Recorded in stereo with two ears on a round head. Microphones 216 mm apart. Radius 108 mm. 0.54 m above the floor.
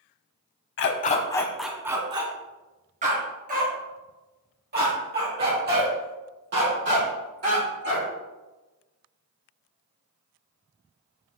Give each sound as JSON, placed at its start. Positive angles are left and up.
{"t": 0.8, "sound": "a dog barking", "side_deg": 50, "distance_m": 0.7}